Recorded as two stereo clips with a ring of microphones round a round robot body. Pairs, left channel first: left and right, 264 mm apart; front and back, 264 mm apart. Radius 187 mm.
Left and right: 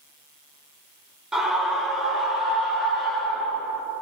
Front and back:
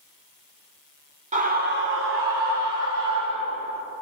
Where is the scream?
175° right, 1.0 m; by 3.8 s straight behind, 2.5 m.